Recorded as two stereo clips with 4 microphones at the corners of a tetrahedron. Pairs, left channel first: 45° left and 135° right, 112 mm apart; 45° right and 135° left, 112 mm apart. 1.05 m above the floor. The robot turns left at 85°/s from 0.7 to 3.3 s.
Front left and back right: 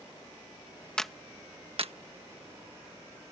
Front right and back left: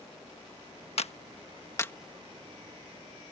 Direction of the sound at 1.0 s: 35° right.